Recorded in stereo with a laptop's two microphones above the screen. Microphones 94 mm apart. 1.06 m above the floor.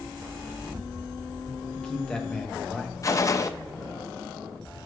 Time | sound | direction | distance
1.7 | a man speaking | 10° left (ahead or behind) | 1.2 m
3.0 | a gunshot | 35° left (ahead or behind) | 0.5 m